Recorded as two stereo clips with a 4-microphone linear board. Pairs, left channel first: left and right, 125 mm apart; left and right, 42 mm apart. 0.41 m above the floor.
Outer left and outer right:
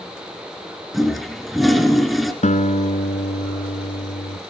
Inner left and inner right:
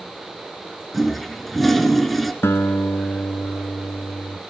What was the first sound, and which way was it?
A toilet flushing, centre (ahead or behind).